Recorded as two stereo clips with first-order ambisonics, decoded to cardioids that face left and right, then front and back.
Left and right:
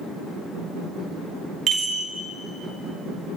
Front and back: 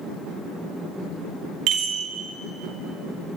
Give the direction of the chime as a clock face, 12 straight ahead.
5 o'clock.